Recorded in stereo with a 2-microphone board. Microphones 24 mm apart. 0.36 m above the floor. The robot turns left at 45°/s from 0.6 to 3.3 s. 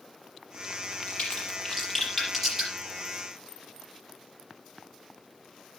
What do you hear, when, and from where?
0.9 s a crack: 65° left (ahead or behind), 7 m; by 2.7 s 15° right (ahead or behind), 7 m